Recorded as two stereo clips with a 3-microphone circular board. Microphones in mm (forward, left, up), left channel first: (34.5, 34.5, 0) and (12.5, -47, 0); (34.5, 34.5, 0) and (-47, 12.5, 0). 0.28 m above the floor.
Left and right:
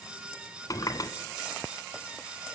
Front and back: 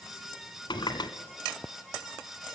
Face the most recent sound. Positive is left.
turn(degrees=35)